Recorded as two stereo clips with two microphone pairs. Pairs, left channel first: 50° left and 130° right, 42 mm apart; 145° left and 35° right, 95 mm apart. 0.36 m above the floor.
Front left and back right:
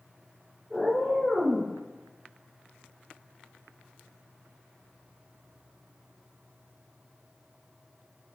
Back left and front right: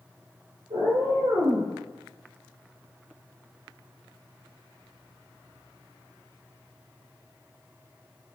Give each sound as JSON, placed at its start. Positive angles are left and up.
{"t": 0.7, "sound": "a cat meowing", "azimuth_deg": -25, "distance_m": 1.9}